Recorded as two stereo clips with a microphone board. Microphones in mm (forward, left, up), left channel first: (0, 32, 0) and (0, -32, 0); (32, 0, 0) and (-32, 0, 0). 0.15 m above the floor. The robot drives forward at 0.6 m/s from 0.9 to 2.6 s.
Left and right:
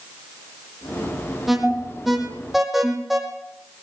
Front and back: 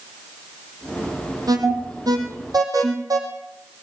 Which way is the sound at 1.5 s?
175° right.